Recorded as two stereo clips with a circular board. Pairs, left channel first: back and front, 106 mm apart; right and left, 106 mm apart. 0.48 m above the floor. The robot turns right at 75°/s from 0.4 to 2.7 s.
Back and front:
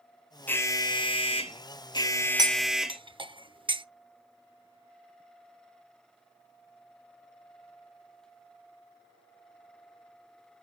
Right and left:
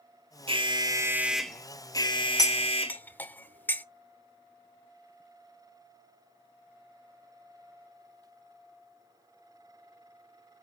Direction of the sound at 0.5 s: 110° left.